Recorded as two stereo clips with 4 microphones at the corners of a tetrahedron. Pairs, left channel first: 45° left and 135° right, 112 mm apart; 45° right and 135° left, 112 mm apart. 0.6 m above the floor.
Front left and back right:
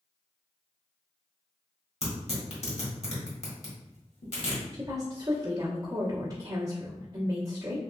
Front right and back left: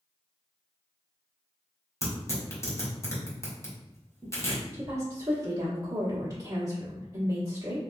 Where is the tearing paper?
20° left, 1.4 m.